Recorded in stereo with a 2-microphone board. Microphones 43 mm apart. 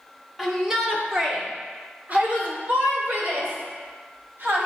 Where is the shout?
Centre (ahead or behind), 1.3 m; by 4.7 s 60° right (ahead or behind), 3 m.